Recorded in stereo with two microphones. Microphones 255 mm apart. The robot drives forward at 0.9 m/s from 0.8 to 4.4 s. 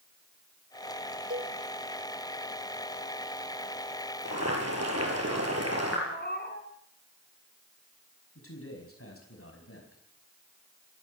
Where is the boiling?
80° right, 7 m; by 6.0 s 75° right (ahead or behind), 7 m.